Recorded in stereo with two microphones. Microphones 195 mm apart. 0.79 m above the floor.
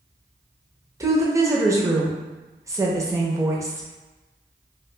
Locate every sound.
1.0 s a woman speaking: 15° right (ahead or behind), 0.5 m